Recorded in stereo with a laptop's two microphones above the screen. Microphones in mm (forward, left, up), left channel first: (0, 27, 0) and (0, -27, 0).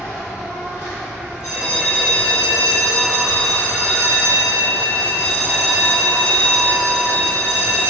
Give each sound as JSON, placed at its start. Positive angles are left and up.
{"t": 0.0, "sound": "an insect", "side_deg": 55, "distance_m": 1.6}
{"t": 1.4, "sound": "a bell", "side_deg": -15, "distance_m": 1.3}